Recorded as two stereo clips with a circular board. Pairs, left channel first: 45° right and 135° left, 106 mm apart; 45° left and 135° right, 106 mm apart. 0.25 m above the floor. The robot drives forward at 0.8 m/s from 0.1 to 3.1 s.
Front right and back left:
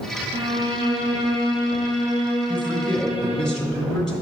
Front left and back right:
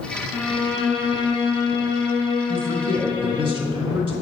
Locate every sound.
0.3 s a violin: 135° left, 1.6 m; by 3.5 s 165° left, 3.5 m
2.5 s a man speaking: 115° right, 2 m; by 4.1 s 130° right, 2 m